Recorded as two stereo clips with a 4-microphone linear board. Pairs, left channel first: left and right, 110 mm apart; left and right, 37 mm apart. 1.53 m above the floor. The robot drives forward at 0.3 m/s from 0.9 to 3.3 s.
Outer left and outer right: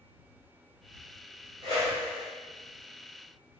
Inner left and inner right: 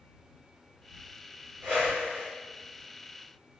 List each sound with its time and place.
1.6 s a whoosh: 55° right (ahead or behind), 1.8 m